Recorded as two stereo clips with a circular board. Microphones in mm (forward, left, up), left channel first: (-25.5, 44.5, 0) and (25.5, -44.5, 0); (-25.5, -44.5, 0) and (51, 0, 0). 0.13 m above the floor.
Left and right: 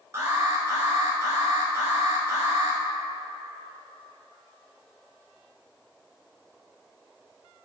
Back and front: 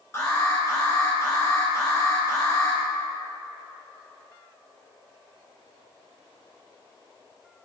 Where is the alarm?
110° right, 1.8 m.